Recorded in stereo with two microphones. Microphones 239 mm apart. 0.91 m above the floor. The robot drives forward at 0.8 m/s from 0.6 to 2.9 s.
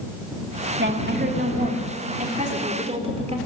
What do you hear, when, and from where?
0.8 s a woman speaking: 50° right (ahead or behind), 1.9 m; by 3.4 s 25° right (ahead or behind), 3 m